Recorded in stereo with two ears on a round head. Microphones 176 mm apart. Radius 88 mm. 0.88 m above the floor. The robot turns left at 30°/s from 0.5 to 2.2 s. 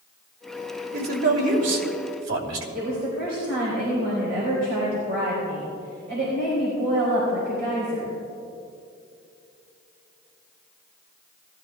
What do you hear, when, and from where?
0.9 s a man speaking: 55° right, 2.5 m; by 2.6 s 95° right, 2.5 m
2.8 s a woman speaking: 55° right (ahead or behind), 4 m